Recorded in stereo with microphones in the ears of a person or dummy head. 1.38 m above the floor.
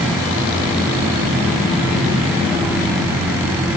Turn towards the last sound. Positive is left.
No sound to turn to.